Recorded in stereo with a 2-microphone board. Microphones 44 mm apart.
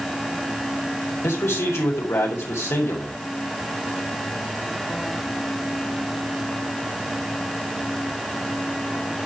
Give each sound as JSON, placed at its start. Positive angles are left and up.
{"t": 1.2, "sound": "a man speaking", "side_deg": 80, "distance_m": 5.0}